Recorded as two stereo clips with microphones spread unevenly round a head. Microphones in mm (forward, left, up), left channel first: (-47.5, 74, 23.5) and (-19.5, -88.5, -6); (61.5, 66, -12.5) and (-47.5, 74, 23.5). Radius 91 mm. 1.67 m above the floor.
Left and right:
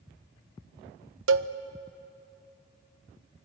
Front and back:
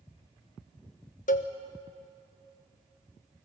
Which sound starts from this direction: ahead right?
A cowbell, at 1.3 s.